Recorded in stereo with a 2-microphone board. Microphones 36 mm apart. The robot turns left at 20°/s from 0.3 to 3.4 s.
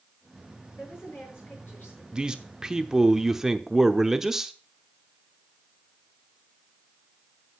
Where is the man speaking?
20° right (ahead or behind), 0.8 m; by 4.5 s 10° right (ahead or behind), 0.8 m.